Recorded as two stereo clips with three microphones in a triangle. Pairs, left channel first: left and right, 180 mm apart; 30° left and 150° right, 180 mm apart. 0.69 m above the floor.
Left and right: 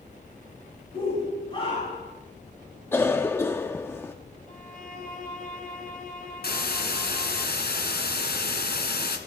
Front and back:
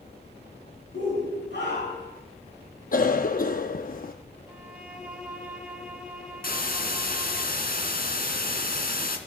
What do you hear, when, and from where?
0.9 s a shout: 30° left, 5 m
2.9 s a cough: 20° left, 0.8 m
4.5 s a violin: 130° left, 3.5 m
6.4 s a hiss: 65° left, 2.5 m